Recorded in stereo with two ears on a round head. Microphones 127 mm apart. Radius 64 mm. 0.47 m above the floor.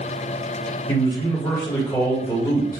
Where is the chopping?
I don't hear chopping.